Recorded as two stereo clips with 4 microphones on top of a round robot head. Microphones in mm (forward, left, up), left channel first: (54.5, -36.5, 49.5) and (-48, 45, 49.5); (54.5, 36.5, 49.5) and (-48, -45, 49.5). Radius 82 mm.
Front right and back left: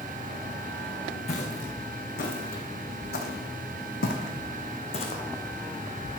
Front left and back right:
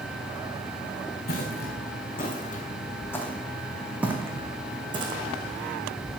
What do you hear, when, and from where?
1.3 s footsteps: straight ahead, 2.5 m; by 5.2 s 90° right, 2.5 m